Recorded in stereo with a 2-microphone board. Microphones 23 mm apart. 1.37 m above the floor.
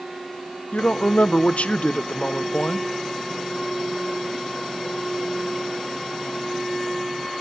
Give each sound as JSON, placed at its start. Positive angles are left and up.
{"t": 0.7, "sound": "a woman speaking", "side_deg": 75, "distance_m": 0.7}